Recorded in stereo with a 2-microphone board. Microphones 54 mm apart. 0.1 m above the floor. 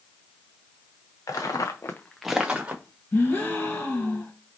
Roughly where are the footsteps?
Left.